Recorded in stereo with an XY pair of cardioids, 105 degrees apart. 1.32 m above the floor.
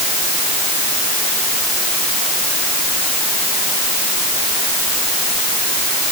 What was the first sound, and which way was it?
Only background noise.